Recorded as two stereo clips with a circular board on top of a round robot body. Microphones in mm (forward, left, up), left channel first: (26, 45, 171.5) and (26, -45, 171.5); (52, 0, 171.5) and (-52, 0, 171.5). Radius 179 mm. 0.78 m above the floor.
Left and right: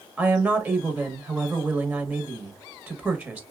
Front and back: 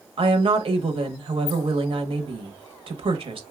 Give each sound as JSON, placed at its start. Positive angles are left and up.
{"t": 0.2, "sound": "a woman speaking", "azimuth_deg": -155, "distance_m": 1.0}